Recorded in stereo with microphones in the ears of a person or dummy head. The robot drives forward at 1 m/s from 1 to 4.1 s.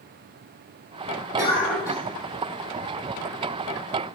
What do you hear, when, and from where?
1.4 s a cough: 10° right (ahead or behind), 2 m; by 2.0 s 5° right (ahead or behind), 2.5 m